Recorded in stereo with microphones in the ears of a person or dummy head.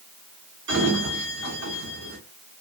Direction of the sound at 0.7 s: 80° right.